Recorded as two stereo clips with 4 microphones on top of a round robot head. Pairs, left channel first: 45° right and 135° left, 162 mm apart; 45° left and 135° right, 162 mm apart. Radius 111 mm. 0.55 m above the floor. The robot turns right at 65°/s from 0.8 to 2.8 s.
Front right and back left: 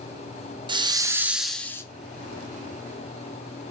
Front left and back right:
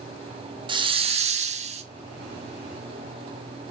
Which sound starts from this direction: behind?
A hiss, at 0.7 s.